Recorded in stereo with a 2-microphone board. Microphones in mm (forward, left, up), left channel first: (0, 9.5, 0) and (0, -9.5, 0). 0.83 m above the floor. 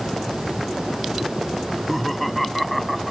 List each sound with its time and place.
1.6 s laughter: 10° left (ahead or behind); by 3.1 s centre (ahead or behind)